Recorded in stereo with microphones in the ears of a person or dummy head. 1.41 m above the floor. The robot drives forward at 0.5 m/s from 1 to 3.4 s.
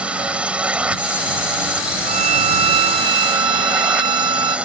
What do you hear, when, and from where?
0.0 s a drone: centre (ahead or behind)
2.1 s a violin: 35° right (ahead or behind); by 4.6 s 20° right (ahead or behind)